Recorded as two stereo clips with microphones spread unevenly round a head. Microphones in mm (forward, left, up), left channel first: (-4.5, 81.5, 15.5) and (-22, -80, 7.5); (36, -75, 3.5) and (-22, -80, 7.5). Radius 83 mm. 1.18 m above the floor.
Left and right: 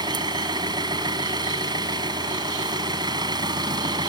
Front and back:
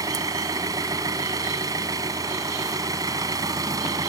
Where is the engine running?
165° right.